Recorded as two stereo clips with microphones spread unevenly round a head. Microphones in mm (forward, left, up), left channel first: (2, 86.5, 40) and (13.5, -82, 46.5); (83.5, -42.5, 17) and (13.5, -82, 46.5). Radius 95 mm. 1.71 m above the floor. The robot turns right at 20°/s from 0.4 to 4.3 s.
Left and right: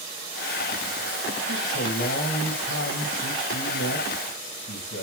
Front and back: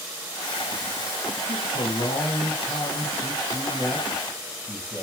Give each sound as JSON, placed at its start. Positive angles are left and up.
{"t": 1.5, "sound": "a man speaking", "azimuth_deg": 60, "distance_m": 2.5}